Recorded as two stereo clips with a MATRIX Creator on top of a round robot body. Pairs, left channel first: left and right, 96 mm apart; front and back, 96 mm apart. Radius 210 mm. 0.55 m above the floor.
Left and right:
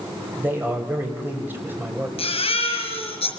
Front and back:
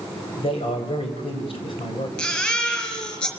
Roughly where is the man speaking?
Ahead.